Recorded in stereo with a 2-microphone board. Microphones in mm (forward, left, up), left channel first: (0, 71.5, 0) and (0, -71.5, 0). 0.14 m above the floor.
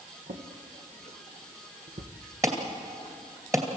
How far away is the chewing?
No chewing in this recording.